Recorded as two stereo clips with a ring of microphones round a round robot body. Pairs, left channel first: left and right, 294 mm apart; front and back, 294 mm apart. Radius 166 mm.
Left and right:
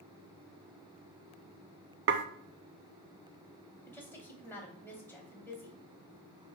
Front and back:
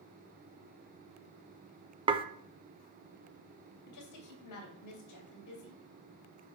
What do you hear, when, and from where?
2.1 s dishes clattering: 115° right, 0.6 m
3.9 s a woman speaking: 10° left, 2.5 m